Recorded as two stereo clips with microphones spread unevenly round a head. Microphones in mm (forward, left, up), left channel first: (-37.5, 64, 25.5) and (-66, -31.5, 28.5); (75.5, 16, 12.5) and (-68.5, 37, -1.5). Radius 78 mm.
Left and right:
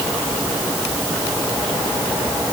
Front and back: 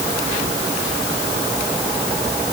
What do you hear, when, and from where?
Only background noise.